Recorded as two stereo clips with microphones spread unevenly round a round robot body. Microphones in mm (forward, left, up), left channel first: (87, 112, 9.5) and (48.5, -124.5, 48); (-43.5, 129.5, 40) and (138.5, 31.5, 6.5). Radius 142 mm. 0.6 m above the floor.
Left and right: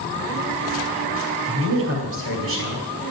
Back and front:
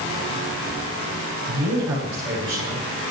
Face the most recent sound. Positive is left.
turn(degrees=-65)